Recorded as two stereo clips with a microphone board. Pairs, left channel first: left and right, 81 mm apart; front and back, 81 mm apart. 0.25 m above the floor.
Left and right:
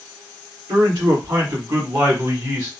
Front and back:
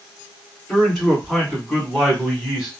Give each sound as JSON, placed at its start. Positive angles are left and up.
{"t": 0.7, "sound": "a man speaking", "azimuth_deg": -85, "distance_m": 2.0}